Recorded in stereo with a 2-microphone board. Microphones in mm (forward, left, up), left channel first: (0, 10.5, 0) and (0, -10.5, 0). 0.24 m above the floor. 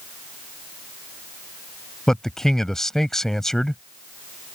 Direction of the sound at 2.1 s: 20° left (ahead or behind).